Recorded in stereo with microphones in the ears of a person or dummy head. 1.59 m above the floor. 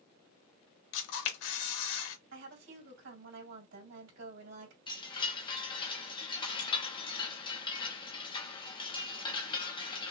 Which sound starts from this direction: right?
A woman speaking, at 2.3 s.